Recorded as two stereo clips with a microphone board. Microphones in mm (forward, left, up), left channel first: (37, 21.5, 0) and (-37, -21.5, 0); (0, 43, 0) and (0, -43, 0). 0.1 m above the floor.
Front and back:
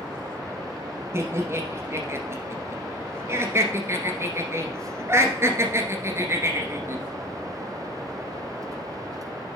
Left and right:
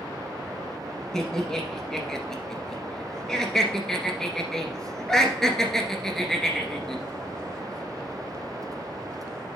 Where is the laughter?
170° left, 1.5 m.